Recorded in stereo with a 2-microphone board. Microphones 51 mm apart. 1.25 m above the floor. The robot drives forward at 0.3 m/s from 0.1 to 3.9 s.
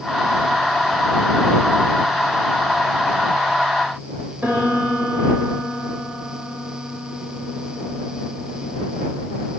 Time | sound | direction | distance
4.4 | a piano | 35° right (ahead or behind) | 7 m